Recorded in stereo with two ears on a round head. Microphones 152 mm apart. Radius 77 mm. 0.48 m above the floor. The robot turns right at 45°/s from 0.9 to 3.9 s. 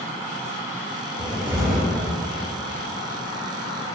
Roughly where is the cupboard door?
Behind.